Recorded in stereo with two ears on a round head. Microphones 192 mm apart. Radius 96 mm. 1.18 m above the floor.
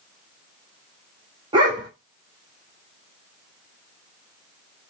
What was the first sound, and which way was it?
A dog barking, 20° right (ahead or behind).